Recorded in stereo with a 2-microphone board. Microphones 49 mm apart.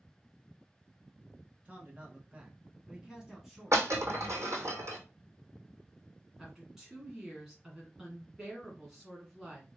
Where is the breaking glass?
70° right (ahead or behind), 1.7 m.